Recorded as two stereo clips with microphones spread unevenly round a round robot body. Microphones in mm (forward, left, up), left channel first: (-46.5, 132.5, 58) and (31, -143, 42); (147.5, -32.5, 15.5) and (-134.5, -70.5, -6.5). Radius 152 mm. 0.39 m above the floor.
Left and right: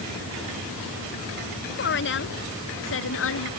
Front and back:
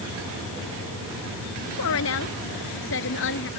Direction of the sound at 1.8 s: 55° left.